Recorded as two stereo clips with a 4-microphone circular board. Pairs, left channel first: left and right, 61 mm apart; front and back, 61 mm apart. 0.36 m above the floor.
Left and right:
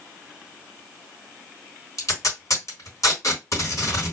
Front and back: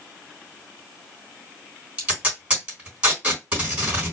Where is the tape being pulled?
115° left, 3 m.